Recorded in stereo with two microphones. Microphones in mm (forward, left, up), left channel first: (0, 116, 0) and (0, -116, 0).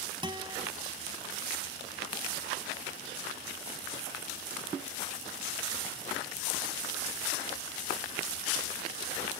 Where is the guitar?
20° right (ahead or behind).